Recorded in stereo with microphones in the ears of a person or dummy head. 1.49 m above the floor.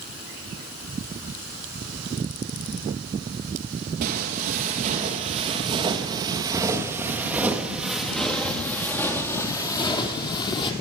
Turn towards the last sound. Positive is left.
turn(degrees=25)  # may be behind; listen again after turning